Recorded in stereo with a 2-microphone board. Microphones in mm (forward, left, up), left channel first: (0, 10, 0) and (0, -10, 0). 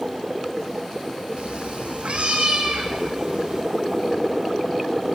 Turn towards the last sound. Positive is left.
turn(degrees=-80)